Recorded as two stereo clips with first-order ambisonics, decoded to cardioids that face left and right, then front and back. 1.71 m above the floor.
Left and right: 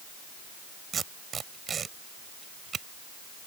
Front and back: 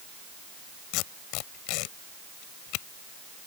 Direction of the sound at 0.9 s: 20° right.